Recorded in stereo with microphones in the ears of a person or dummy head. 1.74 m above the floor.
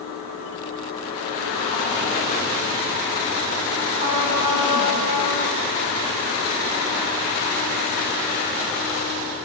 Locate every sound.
4.0 s a trumpet: 25° right (ahead or behind), 4.5 m